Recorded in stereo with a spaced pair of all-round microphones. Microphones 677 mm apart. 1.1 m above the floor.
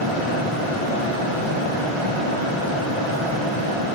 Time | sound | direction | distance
0.0 | a fan | 45° right (ahead or behind) | 1.0 m